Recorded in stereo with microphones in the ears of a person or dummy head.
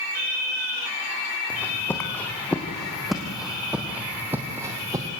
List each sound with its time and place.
1.5 s footsteps: 10° left (ahead or behind), 3.5 m; by 5.1 s 20° right (ahead or behind), 3 m